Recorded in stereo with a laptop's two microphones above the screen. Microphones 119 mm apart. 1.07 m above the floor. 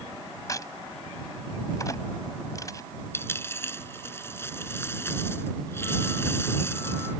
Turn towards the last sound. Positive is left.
turn(degrees=20)  # may be behind; listen again after turning